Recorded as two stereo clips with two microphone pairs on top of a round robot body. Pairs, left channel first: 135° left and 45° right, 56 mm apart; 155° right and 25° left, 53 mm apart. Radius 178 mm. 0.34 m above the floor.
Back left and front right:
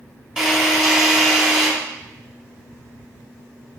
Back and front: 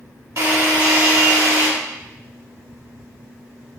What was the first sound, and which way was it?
A drill, 35° left.